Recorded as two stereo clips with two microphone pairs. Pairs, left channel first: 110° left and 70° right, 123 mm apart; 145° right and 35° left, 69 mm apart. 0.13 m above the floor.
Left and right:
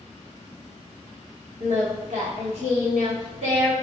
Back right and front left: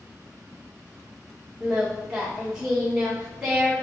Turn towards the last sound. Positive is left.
turn(degrees=-45)